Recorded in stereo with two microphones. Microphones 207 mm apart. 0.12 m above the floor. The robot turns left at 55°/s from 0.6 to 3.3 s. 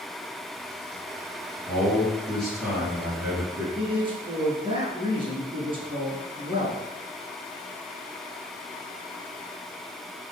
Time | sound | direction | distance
1.7 | a man speaking | 15° left (ahead or behind) | 1.5 m
3.8 | a man speaking | 25° right (ahead or behind) | 1.2 m